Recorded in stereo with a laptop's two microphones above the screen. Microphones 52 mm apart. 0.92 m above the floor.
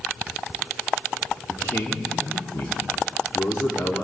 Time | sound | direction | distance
1.5 | a man speaking | 65° left (ahead or behind) | 2.5 m